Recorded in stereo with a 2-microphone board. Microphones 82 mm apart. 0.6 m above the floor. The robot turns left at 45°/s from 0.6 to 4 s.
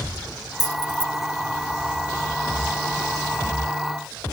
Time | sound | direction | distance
0.6 | keys jangling | 50° left (ahead or behind) | ?